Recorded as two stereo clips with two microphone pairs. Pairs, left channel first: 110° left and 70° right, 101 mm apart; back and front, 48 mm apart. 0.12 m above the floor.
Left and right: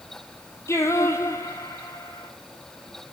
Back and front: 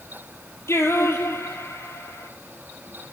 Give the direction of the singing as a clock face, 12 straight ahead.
6 o'clock.